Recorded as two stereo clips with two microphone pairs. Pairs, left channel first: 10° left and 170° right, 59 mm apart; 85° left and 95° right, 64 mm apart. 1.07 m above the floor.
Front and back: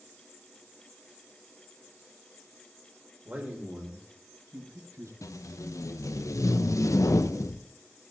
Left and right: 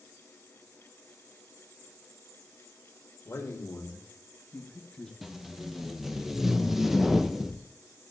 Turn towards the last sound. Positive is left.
turn(degrees=-10)